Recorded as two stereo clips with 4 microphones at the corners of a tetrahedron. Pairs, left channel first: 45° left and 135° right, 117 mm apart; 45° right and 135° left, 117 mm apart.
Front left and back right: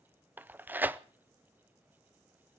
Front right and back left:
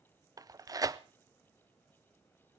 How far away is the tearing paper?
About 0.6 m.